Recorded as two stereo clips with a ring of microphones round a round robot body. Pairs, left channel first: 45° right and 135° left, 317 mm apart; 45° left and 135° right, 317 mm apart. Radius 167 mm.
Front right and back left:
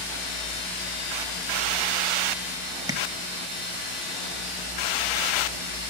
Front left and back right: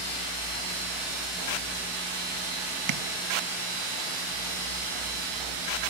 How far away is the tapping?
About 0.8 m.